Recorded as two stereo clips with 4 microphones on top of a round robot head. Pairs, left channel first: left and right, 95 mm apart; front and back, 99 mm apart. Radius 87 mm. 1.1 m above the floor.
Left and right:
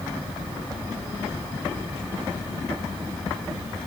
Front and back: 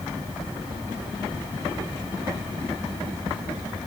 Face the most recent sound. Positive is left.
No sound to turn to.